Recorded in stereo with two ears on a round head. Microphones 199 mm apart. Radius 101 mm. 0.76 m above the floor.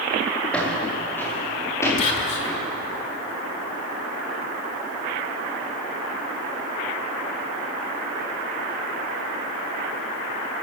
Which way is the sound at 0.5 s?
5° left (ahead or behind).